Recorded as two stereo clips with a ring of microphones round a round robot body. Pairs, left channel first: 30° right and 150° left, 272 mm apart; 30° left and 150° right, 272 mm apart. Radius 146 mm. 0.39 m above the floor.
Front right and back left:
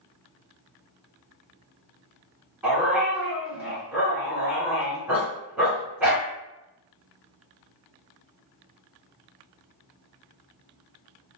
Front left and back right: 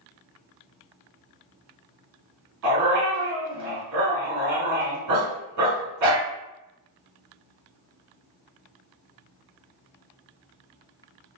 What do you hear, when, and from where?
2.6 s a dog barking: 125° right, 1.4 m